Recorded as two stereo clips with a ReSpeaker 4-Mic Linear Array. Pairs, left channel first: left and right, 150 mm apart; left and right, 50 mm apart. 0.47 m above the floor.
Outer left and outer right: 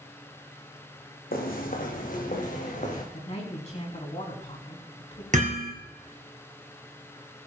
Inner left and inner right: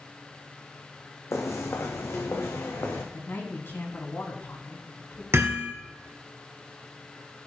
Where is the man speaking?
50° left (ahead or behind), 3.5 m.